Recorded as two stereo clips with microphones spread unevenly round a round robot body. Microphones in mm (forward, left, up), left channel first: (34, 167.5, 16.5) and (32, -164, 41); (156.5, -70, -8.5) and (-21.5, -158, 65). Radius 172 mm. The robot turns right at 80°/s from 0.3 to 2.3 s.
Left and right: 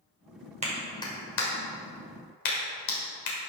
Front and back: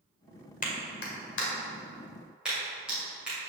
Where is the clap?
20° right, 1.9 m; by 3.4 s 115° left, 1.9 m.